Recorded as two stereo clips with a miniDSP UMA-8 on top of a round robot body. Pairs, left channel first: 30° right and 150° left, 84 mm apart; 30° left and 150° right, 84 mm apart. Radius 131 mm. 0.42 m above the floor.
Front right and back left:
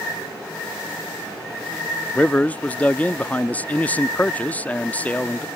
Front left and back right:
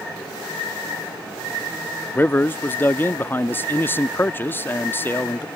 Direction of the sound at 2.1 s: 15° left.